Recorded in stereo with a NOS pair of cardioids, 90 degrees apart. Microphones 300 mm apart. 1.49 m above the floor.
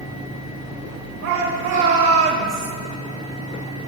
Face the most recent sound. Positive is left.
turn(degrees=-35)